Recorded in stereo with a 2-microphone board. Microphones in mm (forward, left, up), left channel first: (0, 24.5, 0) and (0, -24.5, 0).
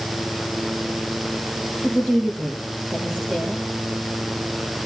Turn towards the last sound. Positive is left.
turn(degrees=-20)  # may be behind; listen again after turning